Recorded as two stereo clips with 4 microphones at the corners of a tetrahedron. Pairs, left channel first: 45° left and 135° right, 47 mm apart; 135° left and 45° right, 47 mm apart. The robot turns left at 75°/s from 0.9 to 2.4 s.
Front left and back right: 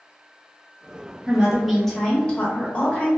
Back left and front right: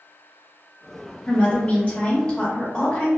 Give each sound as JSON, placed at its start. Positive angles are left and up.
{"t": 1.3, "sound": "a woman speaking", "azimuth_deg": 165, "distance_m": 0.8}